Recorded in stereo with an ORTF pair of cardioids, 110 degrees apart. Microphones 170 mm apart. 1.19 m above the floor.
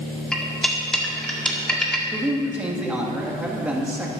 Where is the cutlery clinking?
5° left, 1.8 m.